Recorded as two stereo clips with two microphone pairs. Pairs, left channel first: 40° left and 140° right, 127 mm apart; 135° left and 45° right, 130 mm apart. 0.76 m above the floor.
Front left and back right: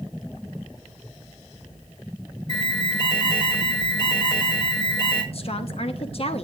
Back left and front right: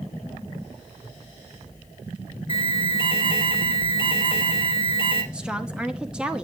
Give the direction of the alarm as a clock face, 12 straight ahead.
9 o'clock.